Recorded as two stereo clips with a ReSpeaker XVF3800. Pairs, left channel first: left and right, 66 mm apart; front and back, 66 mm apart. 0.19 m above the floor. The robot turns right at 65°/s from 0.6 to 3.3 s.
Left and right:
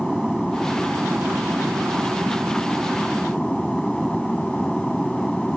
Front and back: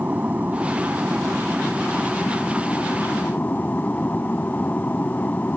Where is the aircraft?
170° right; by 5.6 s 5° left.